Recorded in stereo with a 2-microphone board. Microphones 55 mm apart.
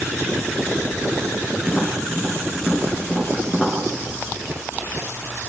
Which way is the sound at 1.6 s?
5° right (ahead or behind).